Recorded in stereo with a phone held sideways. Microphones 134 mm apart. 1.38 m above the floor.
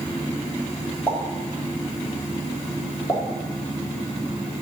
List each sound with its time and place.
1.1 s a pop: 15° left (ahead or behind), 2.5 m